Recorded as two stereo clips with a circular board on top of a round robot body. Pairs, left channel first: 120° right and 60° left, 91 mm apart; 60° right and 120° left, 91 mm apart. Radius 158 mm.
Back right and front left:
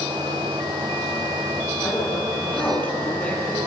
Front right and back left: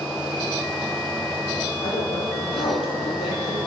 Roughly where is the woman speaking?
Ahead right.